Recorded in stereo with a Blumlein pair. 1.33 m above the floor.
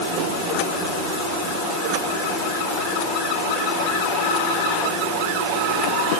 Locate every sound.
Only background noise.